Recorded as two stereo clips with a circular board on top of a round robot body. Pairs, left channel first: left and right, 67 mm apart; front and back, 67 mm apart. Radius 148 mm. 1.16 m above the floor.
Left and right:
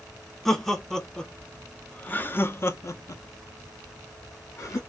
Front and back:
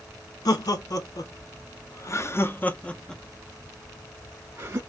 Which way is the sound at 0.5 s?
5° left.